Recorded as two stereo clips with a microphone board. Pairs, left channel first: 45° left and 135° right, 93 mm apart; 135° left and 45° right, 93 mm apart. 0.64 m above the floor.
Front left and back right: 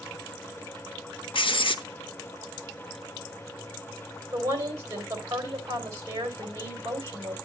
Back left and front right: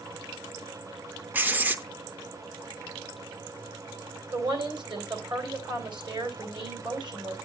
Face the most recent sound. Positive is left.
turn(degrees=-80)